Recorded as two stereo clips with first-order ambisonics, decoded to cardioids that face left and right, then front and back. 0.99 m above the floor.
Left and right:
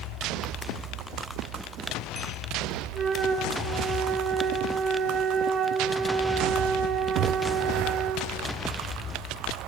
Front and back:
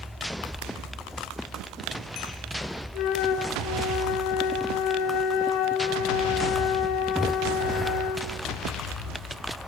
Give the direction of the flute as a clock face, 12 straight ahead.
1 o'clock.